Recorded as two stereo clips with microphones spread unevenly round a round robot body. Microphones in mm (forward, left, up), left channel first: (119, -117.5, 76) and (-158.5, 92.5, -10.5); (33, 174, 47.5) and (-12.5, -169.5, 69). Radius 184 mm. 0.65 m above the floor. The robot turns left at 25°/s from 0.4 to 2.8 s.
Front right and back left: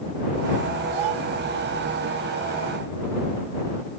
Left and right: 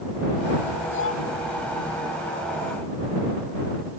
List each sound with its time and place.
0.9 s a child speaking: 140° left; by 1.2 s 135° left